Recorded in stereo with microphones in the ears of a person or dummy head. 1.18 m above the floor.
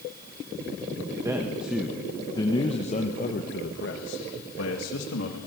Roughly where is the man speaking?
Centre.